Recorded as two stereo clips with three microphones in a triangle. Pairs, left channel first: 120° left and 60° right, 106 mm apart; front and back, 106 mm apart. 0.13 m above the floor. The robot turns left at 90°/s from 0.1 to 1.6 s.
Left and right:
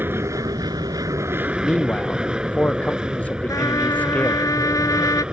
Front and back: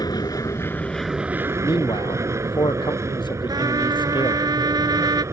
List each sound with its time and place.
0.0 s an aircraft: 5° right; by 5.3 s 140° right
1.6 s a man speaking: 40° left
3.5 s a trumpet: 155° left